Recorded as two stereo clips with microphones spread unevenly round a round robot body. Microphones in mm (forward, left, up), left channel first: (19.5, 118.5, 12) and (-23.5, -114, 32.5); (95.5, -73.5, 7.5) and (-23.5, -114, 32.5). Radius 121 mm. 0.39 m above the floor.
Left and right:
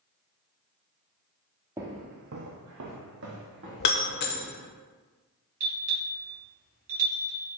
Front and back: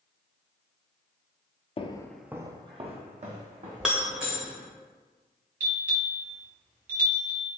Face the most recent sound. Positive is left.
turn(degrees=-160)